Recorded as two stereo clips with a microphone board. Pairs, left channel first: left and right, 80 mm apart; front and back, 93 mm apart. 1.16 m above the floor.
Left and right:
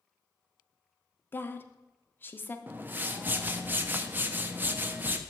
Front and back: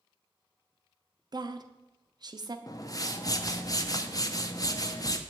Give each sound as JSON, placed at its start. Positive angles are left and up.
{"t": 1.3, "sound": "a woman speaking", "azimuth_deg": 150, "distance_m": 0.5}
{"t": 2.7, "sound": "a whoosh", "azimuth_deg": -30, "distance_m": 0.5}